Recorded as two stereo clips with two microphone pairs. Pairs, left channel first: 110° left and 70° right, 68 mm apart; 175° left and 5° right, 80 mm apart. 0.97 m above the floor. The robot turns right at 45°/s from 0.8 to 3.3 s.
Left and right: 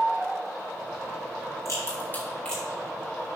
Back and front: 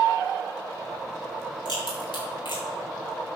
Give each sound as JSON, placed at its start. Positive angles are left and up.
{"t": 1.6, "sound": "a crack", "azimuth_deg": 150, "distance_m": 4.5}